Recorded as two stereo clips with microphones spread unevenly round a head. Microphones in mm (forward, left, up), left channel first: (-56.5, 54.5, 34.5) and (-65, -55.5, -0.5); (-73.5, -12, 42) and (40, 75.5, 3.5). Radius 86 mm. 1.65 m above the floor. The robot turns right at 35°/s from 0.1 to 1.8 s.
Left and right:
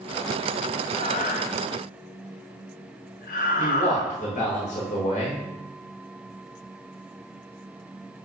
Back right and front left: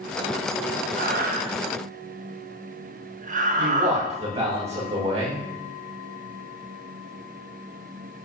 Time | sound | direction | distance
1.0 | breathing | 30° left | 0.6 m
3.6 | a man speaking | 85° left | 3 m